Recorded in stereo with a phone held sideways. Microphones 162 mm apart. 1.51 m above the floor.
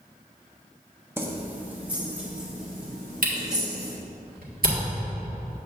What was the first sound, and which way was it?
Keys jangling, 15° right (ahead or behind).